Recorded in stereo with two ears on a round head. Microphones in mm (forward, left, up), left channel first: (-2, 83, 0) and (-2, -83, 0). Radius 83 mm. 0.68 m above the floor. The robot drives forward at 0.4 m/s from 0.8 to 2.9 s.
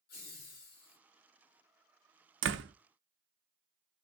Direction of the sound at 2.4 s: 70° right (ahead or behind).